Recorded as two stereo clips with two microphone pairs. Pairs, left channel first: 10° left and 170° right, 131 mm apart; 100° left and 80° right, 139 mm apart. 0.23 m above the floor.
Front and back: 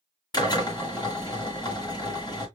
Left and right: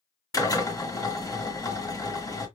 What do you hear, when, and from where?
0.3 s a drill: 50° left, 1.7 m